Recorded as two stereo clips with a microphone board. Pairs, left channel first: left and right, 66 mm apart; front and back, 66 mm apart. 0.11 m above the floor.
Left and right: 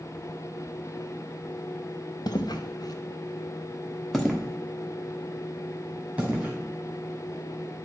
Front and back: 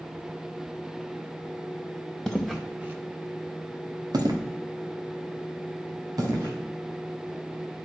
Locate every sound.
2.3 s footsteps: 80° left, 1.4 m; by 6.5 s 155° right, 4 m